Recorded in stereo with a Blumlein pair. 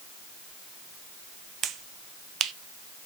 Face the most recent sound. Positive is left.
turn(degrees=-25)